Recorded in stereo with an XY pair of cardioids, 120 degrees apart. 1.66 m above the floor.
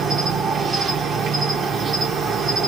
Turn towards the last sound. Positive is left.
turn(degrees=-45)